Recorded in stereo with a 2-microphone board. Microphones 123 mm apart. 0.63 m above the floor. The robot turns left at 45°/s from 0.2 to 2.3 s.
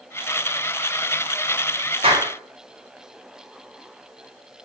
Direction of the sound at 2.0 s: 50° right (ahead or behind).